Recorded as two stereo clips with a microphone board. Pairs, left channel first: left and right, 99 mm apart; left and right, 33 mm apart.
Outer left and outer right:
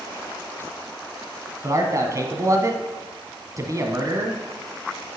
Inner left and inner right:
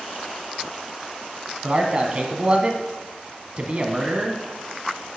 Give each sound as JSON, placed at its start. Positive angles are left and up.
{"t": 1.6, "sound": "a man speaking", "side_deg": -35, "distance_m": 1.5}